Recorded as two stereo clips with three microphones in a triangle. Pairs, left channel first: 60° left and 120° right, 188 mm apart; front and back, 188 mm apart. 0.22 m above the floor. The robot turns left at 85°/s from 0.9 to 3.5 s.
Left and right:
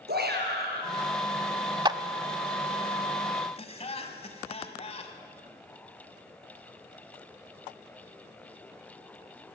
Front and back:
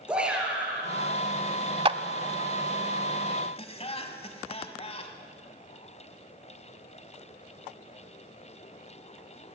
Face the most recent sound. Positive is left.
turn(degrees=30)